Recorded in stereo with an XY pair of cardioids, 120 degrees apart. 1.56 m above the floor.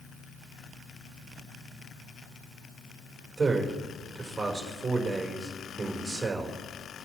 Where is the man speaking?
20° right, 4.5 m.